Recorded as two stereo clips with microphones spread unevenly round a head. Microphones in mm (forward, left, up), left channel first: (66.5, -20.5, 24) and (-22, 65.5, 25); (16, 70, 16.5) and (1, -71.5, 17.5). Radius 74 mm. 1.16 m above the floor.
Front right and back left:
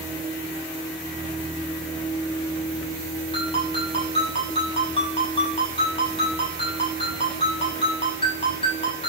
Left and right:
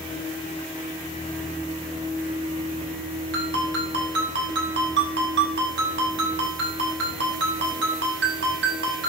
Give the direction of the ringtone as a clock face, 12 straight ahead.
3 o'clock.